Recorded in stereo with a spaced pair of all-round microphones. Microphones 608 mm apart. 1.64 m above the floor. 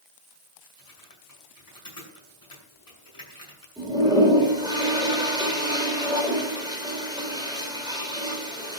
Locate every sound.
0.8 s typing on a keyboard: 35° left (ahead or behind), 7.5 m
3.8 s a toilet flushing: 5° right (ahead or behind), 4.5 m